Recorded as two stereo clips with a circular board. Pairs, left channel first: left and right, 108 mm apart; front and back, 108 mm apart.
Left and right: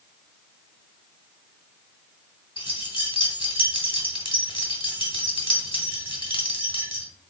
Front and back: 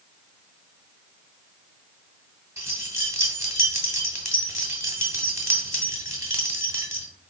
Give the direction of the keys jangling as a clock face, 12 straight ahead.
8 o'clock.